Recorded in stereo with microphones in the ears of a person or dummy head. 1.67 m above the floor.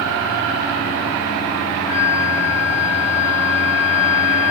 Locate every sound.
1.9 s a flute: 30° right (ahead or behind), 1.6 m